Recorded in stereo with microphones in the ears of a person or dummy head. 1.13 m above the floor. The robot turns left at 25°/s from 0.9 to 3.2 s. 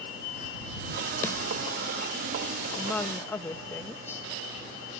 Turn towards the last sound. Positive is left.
turn(degrees=15)  # may be behind; listen again after turning